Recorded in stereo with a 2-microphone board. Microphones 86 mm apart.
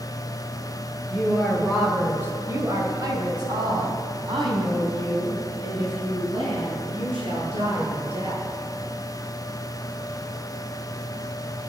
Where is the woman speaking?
10° left (ahead or behind), 1.9 m; by 8.4 s 80° right, 7.5 m.